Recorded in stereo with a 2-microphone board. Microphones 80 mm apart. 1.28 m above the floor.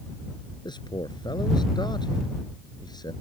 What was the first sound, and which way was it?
A man speaking, 65° left (ahead or behind).